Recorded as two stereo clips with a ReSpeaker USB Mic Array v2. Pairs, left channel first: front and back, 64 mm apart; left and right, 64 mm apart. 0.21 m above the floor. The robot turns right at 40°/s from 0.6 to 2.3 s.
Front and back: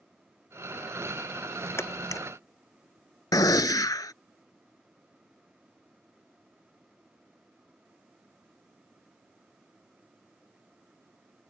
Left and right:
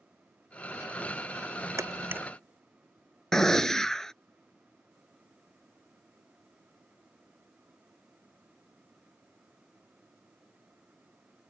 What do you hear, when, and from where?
1.8 s a camera shutter: 45° right; by 2.2 s 30° right
3.3 s a gunshot: 5° left